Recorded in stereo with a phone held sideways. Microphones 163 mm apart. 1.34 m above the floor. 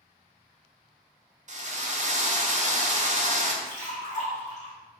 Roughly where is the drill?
Right.